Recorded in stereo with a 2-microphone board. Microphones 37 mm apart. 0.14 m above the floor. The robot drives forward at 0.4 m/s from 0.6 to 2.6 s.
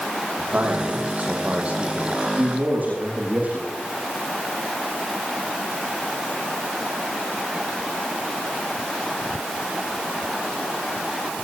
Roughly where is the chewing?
I don't hear chewing.